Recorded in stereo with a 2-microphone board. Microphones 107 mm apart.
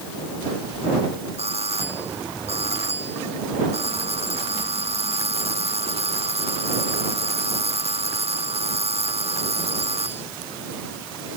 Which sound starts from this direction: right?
A doorbell, at 1.4 s.